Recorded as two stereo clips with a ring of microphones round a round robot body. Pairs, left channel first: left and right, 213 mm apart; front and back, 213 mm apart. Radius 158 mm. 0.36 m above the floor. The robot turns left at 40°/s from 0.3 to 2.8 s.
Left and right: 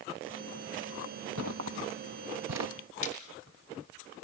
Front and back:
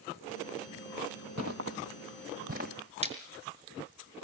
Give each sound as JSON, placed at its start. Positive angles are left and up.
{"t": 1.4, "sound": "footsteps", "azimuth_deg": -135, "distance_m": 0.8}
{"t": 3.0, "sound": "a splash", "azimuth_deg": 120, "distance_m": 5.5}